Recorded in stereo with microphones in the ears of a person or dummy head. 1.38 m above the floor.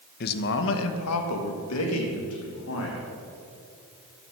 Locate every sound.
0.2 s a man speaking: 45° left (ahead or behind), 1.1 m; by 3.0 s 70° left (ahead or behind), 3 m